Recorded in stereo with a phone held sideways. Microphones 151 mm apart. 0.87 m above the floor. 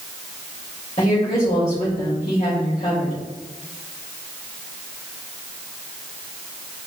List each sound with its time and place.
1.0 s a woman speaking: 45° left (ahead or behind), 4 m